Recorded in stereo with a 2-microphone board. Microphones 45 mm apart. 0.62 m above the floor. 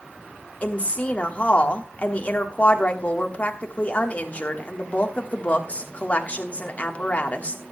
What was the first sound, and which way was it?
A woman speaking, 35° left (ahead or behind).